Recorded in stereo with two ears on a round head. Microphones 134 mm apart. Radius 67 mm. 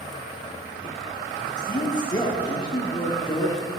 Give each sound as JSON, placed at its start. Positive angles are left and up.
{"t": 1.6, "sound": "a man speaking", "side_deg": 30, "distance_m": 1.0}